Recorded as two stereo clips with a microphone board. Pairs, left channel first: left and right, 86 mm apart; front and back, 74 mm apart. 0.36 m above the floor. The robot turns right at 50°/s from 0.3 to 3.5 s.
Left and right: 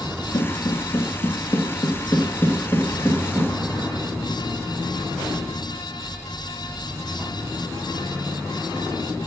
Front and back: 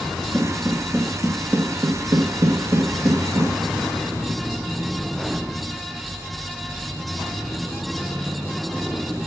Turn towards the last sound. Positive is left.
turn(degrees=-165)